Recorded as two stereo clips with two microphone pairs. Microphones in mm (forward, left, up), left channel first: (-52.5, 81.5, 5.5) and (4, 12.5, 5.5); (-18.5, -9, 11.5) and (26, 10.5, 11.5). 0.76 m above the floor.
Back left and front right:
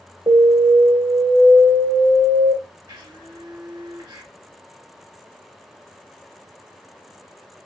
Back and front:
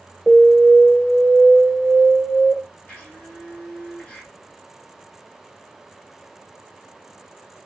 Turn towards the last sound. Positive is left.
turn(degrees=-95)